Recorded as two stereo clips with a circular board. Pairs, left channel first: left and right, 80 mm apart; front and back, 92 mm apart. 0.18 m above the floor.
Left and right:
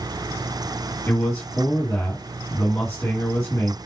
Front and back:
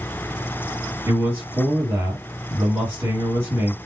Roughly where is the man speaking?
Behind left.